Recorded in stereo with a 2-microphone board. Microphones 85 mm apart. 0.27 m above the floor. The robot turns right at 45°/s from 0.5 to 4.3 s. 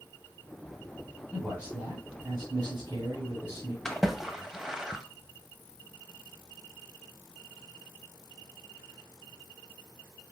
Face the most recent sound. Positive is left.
turn(degrees=-5)  # may be behind; listen again after turning